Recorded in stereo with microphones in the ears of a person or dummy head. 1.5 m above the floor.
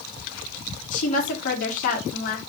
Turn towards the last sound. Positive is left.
turn(degrees=50)  # may be behind; listen again after turning